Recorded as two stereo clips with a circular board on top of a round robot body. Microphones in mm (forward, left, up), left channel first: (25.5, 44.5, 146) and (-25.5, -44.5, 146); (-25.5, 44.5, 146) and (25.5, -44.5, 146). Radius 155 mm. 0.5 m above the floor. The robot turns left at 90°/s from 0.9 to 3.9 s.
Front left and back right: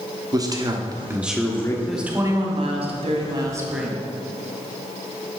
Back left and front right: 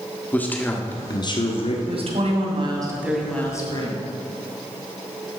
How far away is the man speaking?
About 1.3 m.